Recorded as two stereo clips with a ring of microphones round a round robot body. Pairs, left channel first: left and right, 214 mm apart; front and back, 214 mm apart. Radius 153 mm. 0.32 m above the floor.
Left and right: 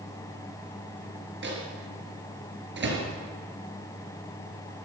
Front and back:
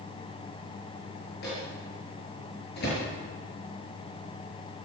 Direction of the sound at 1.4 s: 60° right.